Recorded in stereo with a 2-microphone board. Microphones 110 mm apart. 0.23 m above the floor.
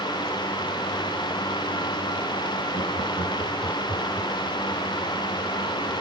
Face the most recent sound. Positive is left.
turn(degrees=-25)  # may be behind; listen again after turning